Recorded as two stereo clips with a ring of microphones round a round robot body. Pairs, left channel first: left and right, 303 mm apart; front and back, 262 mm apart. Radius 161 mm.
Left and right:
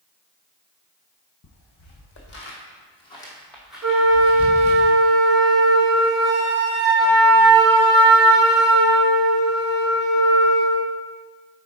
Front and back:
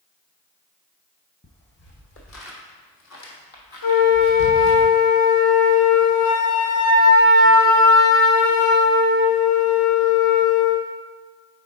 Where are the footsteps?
50° left, 1.9 m; by 4.8 s 25° right, 1.9 m.